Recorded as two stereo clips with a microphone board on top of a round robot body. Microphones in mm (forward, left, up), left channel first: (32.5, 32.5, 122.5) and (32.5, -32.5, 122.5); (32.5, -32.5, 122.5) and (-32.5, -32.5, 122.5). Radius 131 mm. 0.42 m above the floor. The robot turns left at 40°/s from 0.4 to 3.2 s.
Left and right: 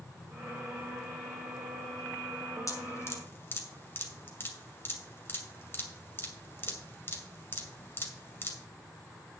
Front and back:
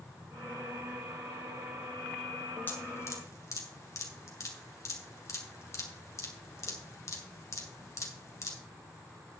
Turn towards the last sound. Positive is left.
turn(degrees=40)